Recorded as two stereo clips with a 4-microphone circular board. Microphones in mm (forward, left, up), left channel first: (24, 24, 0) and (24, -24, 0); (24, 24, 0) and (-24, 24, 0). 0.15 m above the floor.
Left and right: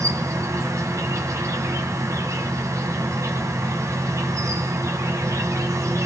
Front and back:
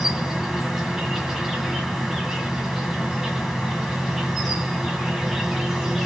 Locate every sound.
0.0 s an insect: 95° right, 1.9 m